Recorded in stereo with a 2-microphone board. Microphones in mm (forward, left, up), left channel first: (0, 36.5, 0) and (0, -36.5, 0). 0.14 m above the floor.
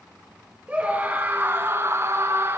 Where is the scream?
20° right (ahead or behind), 2.5 m; by 2.6 s 35° right (ahead or behind), 1.7 m.